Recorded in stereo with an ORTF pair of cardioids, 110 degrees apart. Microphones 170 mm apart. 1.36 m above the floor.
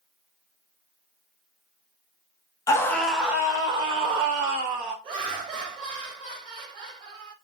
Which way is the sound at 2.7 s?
20° left.